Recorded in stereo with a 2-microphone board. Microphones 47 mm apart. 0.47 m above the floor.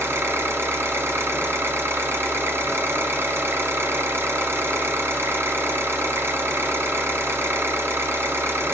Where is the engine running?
65° right (ahead or behind), 1.3 m.